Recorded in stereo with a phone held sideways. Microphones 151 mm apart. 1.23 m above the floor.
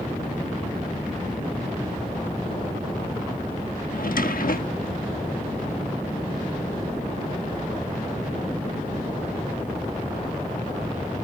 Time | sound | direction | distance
3.9 | a drawer | 70° left (ahead or behind) | ?